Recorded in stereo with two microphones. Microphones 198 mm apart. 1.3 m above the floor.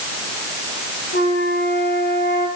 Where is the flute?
65° left (ahead or behind), 6 m.